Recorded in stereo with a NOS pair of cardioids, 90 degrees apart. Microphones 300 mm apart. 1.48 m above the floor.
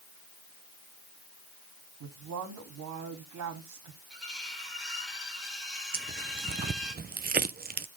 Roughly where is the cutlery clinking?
Ahead.